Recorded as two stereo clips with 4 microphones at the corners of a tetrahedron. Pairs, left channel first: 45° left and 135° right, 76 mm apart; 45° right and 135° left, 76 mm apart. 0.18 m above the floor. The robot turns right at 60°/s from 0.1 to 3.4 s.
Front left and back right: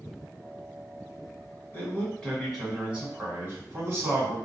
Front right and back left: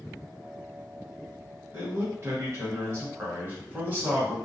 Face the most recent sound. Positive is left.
turn(degrees=-175)